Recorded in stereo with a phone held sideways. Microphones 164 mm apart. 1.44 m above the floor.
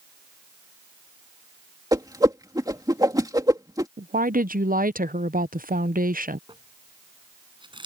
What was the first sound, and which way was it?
A whoosh, 20° right (ahead or behind).